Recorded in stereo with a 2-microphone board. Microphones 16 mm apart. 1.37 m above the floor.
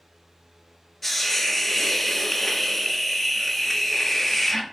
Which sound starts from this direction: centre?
A hiss, at 1.0 s.